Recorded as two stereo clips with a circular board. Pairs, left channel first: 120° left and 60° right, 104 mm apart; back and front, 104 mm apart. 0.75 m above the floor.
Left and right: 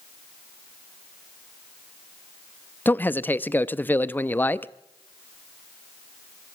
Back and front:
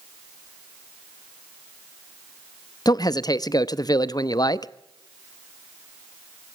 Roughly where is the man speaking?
Behind.